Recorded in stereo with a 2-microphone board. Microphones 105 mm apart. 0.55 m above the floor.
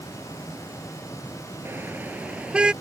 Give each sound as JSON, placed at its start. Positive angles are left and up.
{"t": 1.6, "sound": "a car horn", "side_deg": -20}